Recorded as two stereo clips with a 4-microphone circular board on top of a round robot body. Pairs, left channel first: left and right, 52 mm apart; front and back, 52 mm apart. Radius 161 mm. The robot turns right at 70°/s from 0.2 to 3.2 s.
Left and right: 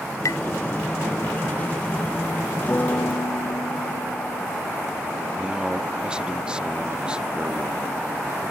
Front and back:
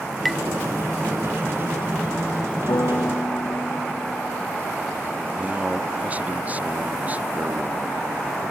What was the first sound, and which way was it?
Tapping, 85° left.